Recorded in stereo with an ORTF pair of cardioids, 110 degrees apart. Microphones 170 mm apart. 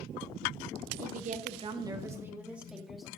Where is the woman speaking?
60° right, 1.0 m; by 3.1 s straight ahead, 2 m.